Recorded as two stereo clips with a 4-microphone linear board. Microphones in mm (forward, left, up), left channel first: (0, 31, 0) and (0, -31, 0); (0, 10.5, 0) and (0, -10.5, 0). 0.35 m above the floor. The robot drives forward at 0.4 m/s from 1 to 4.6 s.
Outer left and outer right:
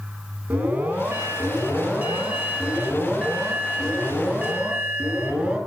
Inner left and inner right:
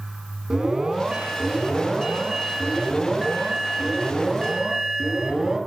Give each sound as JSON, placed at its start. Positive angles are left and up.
{"t": 0.5, "sound": "an alarm", "side_deg": -20, "distance_m": 3.0}